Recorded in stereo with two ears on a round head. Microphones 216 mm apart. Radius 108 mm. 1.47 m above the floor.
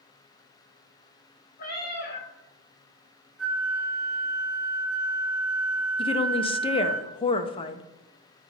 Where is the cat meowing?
40° left (ahead or behind), 1.6 m.